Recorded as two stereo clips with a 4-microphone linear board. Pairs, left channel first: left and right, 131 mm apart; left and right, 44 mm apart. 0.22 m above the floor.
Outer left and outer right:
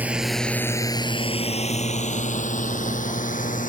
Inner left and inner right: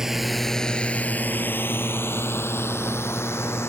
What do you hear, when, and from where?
0.0 s a drone: 10° right (ahead or behind); by 3.7 s 85° left